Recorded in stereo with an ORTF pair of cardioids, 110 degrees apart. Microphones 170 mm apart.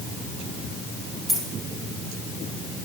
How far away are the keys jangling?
About 2 m.